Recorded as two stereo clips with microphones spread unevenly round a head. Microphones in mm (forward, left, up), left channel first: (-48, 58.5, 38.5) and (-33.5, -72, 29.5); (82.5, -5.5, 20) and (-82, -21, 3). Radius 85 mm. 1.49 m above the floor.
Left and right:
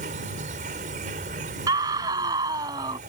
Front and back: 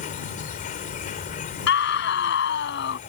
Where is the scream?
15° right.